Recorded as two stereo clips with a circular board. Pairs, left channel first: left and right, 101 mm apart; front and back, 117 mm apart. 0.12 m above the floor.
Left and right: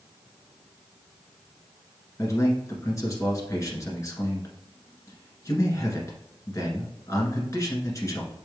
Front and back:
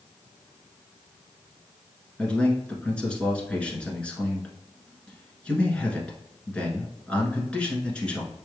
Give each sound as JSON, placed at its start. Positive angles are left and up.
{"t": 2.2, "sound": "a man speaking", "azimuth_deg": 75, "distance_m": 1.3}